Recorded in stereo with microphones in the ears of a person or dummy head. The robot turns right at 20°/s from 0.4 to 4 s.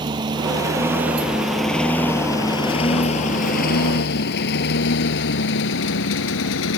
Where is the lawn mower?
20° right (ahead or behind); by 6.8 s 75° left (ahead or behind).